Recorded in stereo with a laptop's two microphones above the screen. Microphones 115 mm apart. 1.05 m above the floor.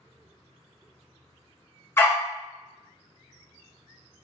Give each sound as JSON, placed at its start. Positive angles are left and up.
{"t": 2.0, "sound": "a dog barking", "side_deg": 20, "distance_m": 1.0}